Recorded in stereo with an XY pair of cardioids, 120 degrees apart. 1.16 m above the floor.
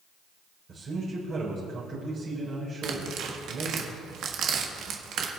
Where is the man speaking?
45° right, 4 m.